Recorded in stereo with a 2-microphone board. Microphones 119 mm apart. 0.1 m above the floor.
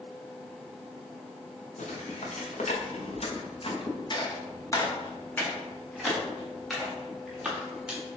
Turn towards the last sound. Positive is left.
turn(degrees=-10)  # may be behind; listen again after turning